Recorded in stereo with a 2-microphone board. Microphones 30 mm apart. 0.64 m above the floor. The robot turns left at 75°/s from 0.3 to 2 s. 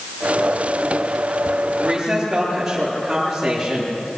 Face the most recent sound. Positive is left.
turn(degrees=-5)  # may be behind; listen again after turning